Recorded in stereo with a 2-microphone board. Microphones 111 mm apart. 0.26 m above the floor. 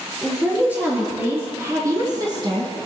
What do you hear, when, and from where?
0.2 s a woman speaking: 10° right (ahead or behind), 5.5 m; by 2.7 s 50° right (ahead or behind), 2.5 m